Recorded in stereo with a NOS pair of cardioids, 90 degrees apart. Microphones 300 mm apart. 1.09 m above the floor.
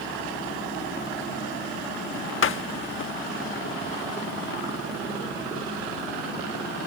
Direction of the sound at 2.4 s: 45° left.